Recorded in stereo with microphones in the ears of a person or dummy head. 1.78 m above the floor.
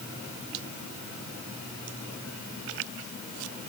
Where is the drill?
No drill in this recording.